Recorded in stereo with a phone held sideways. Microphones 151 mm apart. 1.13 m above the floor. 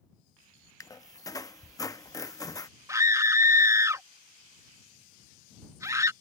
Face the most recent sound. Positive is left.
turn(degrees=-20)  # may be behind; listen again after turning